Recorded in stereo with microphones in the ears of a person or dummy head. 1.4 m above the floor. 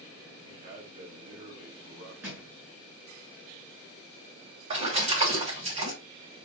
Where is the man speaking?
45° right (ahead or behind), 2.5 m.